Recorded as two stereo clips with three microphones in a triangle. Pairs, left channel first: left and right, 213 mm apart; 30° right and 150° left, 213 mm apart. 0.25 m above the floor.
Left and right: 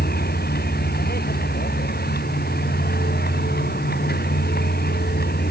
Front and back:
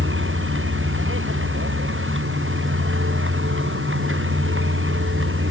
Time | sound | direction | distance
0.0 | a vehicle | 130° left | ?